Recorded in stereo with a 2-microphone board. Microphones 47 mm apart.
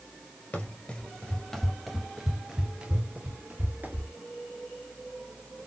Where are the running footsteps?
35° left (ahead or behind), 1.8 m; by 4.1 s 45° right (ahead or behind), 2.5 m.